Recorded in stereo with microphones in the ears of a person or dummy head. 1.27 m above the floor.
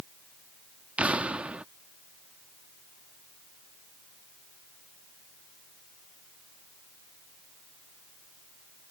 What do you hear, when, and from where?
1.0 s an explosion: 5° right (ahead or behind)